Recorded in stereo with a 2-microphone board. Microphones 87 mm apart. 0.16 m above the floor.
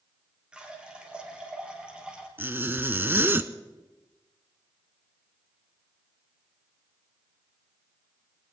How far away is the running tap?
About 3 m.